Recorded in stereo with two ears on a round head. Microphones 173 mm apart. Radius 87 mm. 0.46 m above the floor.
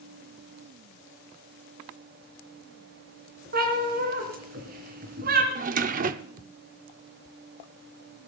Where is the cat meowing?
50° right (ahead or behind), 3 m.